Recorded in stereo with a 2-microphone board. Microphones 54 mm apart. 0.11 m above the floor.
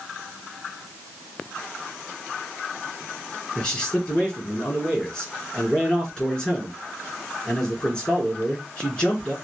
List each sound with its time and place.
3.5 s a man speaking: 20° left (ahead or behind), 1.9 m